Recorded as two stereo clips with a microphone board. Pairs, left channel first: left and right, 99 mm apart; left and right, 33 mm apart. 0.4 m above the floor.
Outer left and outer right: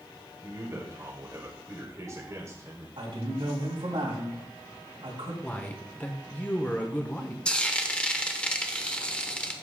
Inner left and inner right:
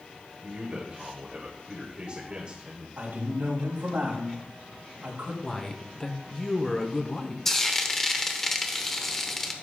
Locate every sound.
0.4 s a man speaking: 30° right (ahead or behind), 2 m
3.0 s a man speaking: 65° right (ahead or behind), 3 m
5.4 s a man speaking: 15° left (ahead or behind), 1.0 m
7.5 s frying: 10° left (ahead or behind), 0.9 m